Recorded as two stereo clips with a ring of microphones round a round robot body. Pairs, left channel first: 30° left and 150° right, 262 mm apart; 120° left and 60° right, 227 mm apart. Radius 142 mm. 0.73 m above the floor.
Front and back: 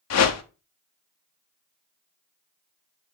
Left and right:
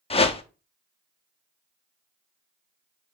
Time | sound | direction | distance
0.1 | a whoosh | 55° left | 0.9 m